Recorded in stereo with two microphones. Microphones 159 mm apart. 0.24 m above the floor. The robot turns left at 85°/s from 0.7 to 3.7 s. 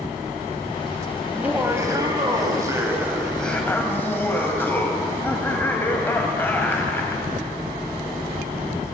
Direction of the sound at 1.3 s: 5° right (ahead or behind).